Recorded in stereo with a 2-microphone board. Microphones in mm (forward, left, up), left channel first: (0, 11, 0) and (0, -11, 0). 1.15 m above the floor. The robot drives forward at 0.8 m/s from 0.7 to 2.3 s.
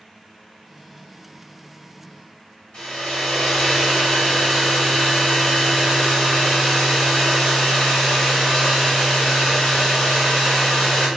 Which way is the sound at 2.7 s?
50° left (ahead or behind).